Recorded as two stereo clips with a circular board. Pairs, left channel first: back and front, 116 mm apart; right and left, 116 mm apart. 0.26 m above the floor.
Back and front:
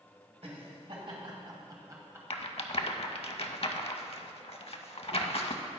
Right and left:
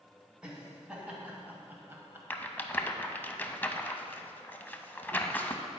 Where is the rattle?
160° right, 0.5 m.